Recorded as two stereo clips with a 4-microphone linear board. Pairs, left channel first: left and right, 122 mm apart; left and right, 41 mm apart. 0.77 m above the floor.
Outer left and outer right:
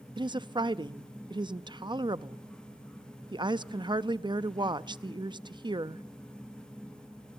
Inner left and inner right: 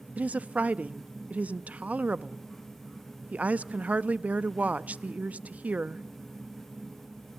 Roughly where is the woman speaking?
Right.